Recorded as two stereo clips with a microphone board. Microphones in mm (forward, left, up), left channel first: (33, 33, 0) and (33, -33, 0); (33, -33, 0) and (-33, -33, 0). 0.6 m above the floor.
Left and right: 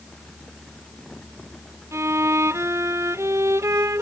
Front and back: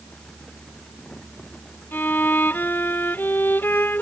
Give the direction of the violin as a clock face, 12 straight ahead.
2 o'clock.